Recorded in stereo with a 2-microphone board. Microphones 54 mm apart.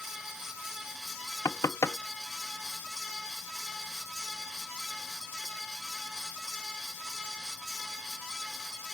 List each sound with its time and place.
1.4 s knocking: 70° left (ahead or behind)